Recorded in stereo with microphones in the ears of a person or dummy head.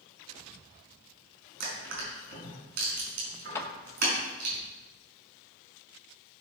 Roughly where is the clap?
Centre.